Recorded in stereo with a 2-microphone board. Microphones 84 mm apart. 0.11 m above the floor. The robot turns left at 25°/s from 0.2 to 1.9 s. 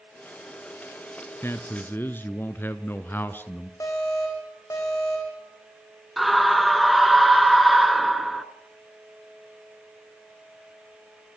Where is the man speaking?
30° left (ahead or behind), 1.2 m; by 3.7 s 25° left (ahead or behind), 1.2 m.